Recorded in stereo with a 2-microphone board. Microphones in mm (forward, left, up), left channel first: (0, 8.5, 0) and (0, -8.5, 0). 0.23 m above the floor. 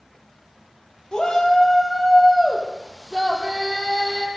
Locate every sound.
1.1 s a shout: 45° left (ahead or behind), 6.5 m; by 4.3 s 20° left (ahead or behind), 8.5 m